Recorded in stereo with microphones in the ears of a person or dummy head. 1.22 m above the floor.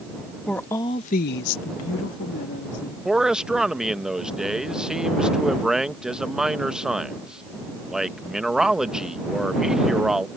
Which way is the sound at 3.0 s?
5° left (ahead or behind).